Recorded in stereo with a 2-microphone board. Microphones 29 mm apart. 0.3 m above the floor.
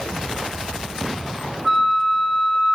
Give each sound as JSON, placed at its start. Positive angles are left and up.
{"t": 1.6, "sound": "a flute", "side_deg": -15, "distance_m": 1.3}